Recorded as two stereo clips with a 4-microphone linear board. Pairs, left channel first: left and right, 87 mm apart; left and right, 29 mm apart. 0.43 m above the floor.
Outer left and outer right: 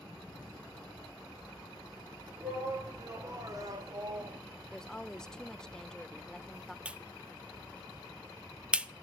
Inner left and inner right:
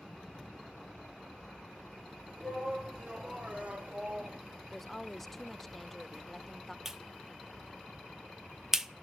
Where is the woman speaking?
5° left (ahead or behind), 0.8 m.